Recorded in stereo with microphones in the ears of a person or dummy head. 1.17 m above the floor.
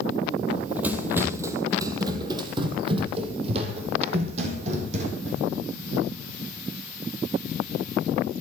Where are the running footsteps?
5° right (ahead or behind), 2.5 m; by 5.4 s 45° right (ahead or behind), 4 m.